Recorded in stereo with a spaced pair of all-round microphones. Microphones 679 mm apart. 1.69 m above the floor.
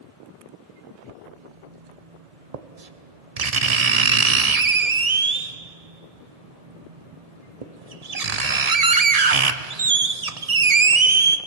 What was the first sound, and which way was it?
Writing, 60° right (ahead or behind).